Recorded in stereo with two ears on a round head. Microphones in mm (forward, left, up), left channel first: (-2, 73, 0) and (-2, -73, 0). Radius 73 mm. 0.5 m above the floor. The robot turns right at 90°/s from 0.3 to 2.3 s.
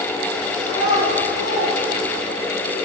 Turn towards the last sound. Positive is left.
turn(degrees=-20)  # may be behind; listen again after turning